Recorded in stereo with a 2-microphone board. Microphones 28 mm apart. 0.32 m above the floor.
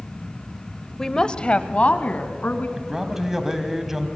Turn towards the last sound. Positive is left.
turn(degrees=-15)  # may be behind; listen again after turning